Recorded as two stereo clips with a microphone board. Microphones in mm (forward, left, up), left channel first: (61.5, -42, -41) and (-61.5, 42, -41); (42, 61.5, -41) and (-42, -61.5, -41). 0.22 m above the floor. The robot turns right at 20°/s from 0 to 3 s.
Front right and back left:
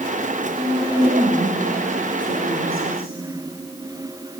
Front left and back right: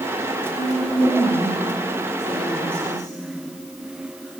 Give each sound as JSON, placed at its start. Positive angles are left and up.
{"t": 0.6, "sound": "a woman speaking", "azimuth_deg": 95, "distance_m": 7.5}